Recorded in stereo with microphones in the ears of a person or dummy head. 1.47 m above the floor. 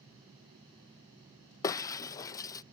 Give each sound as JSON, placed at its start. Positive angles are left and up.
{"t": 1.6, "sound": "breaking glass", "side_deg": 20}